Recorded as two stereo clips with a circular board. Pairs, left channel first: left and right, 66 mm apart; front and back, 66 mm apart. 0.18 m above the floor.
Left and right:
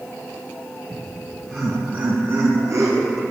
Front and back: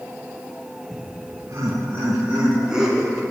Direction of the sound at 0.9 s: 165° left.